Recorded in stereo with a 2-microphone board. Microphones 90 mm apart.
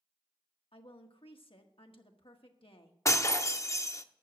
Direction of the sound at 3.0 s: 35° left (ahead or behind).